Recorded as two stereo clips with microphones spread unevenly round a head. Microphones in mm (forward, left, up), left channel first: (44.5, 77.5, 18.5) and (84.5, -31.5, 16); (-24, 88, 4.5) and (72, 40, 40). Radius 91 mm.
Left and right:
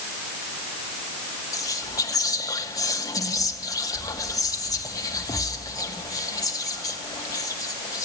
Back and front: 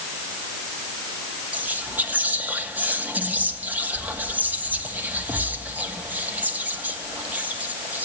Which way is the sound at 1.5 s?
50° left.